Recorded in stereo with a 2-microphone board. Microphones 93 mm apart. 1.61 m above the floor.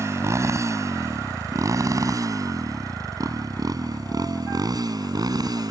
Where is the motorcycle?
35° right (ahead or behind); by 5.7 s 45° right (ahead or behind).